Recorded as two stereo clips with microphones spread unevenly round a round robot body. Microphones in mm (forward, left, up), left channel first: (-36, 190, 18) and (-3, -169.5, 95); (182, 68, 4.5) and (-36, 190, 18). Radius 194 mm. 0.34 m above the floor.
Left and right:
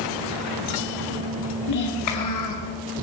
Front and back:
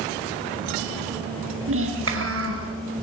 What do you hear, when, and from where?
1.7 s a child speaking: 125° left, 5 m